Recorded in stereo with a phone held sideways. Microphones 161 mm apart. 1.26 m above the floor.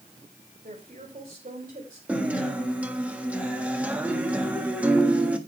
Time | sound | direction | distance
0.6 | a woman speaking | 55° right (ahead or behind) | 3 m
2.1 | a guitar | 10° right (ahead or behind) | 1.5 m